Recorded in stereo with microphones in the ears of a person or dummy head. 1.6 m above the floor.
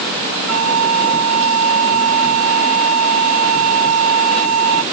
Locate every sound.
0.5 s a flute: 85° right